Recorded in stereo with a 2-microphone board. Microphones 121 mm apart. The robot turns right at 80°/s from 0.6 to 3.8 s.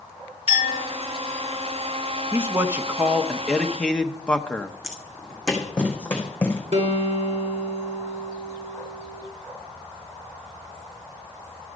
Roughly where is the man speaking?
Centre.